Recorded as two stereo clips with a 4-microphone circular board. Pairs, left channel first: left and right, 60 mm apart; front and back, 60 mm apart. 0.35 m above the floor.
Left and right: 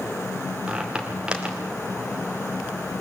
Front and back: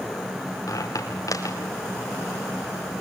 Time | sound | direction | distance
0.7 | a squeak | 15° right | 5 m